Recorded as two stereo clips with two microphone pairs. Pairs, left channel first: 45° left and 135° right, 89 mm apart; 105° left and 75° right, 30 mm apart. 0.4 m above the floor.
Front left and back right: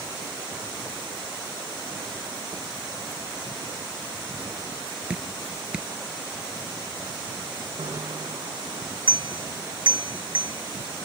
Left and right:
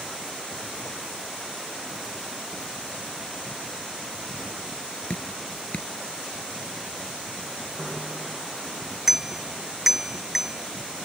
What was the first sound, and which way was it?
Dripping, 150° left.